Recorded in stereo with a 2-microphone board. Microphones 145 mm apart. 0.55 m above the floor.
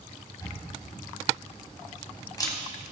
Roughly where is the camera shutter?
Left.